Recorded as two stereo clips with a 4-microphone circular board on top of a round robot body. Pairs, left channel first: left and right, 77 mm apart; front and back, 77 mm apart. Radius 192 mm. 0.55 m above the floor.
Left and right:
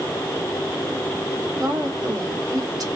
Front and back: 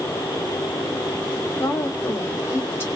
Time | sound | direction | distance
1.6 | a woman speaking | 55° right | 2 m